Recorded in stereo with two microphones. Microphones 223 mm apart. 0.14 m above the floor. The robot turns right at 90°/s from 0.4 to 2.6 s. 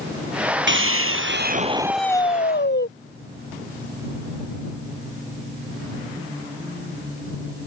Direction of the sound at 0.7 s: 120° right.